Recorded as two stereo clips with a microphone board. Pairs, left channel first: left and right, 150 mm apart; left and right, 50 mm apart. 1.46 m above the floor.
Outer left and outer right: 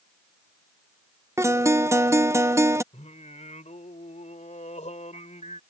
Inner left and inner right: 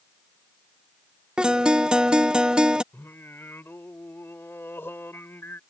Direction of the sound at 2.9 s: 50° left (ahead or behind).